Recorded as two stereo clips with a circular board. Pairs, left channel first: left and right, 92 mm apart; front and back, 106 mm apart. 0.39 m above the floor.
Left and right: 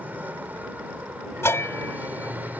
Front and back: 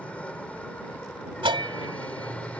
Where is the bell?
150° left.